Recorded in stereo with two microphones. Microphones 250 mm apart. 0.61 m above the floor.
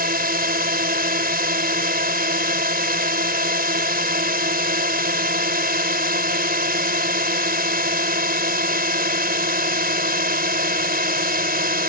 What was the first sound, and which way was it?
A drone, 35° right (ahead or behind).